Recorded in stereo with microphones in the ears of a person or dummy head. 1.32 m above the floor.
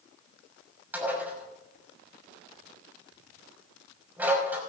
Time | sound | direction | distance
0.9 | dishes clattering | 10° right (ahead or behind) | 6 m